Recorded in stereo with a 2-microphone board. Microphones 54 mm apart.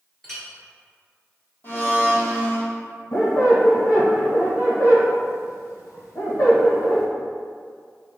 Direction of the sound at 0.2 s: 10° left (ahead or behind).